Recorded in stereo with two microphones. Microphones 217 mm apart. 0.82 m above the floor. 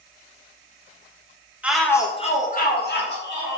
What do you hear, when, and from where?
1.6 s a shout: 5° right (ahead or behind), 0.5 m; by 3.6 s 65° left (ahead or behind), 1.2 m